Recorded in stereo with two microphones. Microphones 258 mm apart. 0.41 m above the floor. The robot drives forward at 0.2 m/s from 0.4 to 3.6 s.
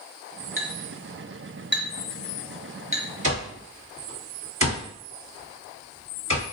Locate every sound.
0.6 s a clink: 50° left (ahead or behind), 0.7 m; by 3.0 s 30° left (ahead or behind), 1.0 m
3.2 s an alarm clock: 50° right (ahead or behind), 1.5 m